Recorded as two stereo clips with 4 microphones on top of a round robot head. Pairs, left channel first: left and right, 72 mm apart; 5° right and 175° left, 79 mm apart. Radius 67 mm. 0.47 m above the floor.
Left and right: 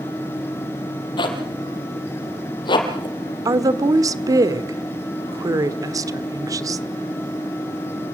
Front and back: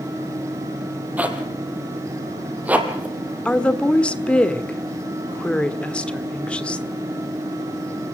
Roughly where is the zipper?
Left.